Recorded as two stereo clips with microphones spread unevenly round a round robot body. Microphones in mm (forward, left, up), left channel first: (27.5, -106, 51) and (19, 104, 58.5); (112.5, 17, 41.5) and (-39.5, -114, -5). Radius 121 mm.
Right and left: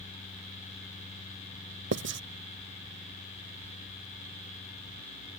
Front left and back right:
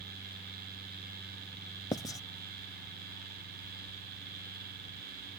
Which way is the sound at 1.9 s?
120° left.